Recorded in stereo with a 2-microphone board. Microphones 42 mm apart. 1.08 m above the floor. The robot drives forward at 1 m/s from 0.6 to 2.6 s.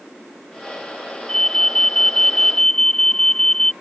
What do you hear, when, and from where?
1.3 s an alarm: 15° left (ahead or behind); by 3.7 s 10° left (ahead or behind)